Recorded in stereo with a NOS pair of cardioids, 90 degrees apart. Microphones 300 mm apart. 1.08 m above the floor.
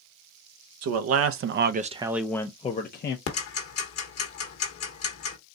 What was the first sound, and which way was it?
A man speaking, 70° right.